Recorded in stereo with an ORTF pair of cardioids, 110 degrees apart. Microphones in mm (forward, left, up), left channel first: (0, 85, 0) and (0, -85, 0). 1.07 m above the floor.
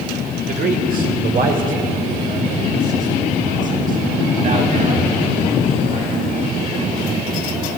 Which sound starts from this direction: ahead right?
A man speaking, at 0.5 s.